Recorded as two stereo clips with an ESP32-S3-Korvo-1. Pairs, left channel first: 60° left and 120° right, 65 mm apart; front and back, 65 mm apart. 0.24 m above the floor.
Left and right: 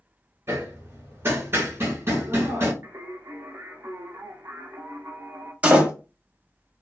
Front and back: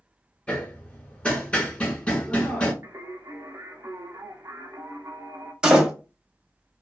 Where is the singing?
150° right, 0.6 m.